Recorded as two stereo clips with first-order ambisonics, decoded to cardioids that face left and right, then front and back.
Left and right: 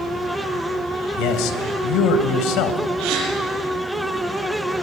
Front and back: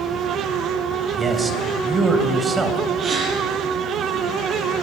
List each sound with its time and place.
1.2 s a man speaking: 105° left, 3 m
3.0 s a gasp: 120° right, 9 m